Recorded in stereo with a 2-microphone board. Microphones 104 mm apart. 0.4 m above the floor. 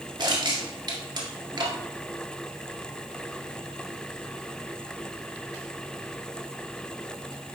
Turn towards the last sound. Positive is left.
turn(degrees=-45)  # may be behind; listen again after turning